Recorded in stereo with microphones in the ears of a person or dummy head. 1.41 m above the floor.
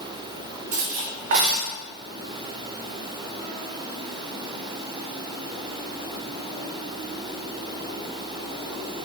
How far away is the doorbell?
No doorbell in this recording.